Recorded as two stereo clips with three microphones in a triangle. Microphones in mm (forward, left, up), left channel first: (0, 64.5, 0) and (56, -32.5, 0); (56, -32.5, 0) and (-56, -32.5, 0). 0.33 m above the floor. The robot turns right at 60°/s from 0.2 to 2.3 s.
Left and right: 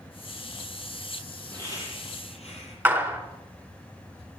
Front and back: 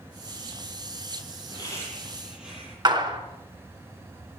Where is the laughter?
50° left, 8.5 m; by 2.8 s 95° left, 8.5 m.